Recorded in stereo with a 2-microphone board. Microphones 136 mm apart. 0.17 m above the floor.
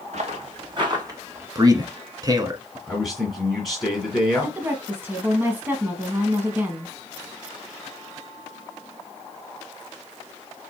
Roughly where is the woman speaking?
Centre.